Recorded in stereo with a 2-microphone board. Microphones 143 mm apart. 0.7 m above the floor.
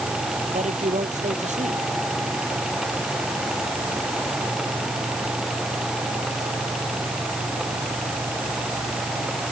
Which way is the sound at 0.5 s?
50° right (ahead or behind).